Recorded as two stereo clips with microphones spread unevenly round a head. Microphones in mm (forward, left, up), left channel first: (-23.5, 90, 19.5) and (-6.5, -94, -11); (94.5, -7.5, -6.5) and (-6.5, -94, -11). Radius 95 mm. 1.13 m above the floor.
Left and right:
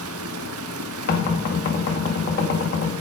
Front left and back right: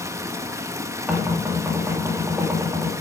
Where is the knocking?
140° left, 2 m.